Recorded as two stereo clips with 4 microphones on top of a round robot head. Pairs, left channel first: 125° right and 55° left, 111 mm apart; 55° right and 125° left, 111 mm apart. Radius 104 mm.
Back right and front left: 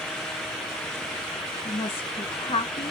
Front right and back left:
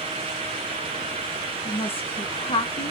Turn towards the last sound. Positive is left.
turn(degrees=-90)